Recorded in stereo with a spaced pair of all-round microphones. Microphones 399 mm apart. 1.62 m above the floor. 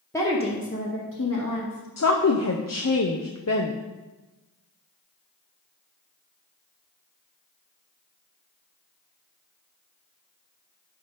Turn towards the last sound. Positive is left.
turn(degrees=40)  # may be behind; listen again after turning